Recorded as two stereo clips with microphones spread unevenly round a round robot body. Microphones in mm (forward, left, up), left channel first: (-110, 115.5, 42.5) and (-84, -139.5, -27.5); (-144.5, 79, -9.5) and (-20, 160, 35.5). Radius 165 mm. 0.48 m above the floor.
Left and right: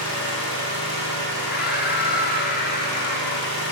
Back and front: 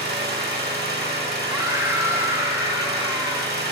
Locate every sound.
0.0 s an engine running: 45° left, 1.6 m
1.5 s a scream: 125° left, 0.8 m